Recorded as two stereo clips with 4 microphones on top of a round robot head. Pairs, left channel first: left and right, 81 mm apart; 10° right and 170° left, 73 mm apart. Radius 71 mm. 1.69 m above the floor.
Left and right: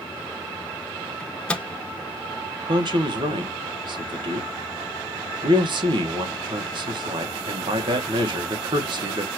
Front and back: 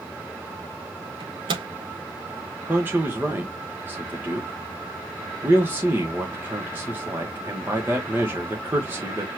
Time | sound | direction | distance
1.2 | a microwave | 165° left | 0.8 m
2.7 | a man speaking | 115° right | 1.3 m